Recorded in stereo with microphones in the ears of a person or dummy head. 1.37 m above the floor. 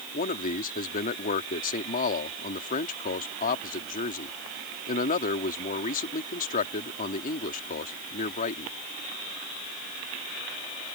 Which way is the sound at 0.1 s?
40° left (ahead or behind).